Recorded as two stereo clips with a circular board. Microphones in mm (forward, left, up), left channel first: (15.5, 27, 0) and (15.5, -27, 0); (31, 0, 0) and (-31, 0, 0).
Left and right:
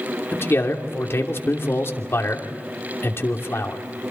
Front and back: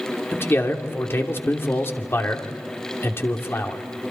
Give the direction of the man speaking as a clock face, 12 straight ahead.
10 o'clock.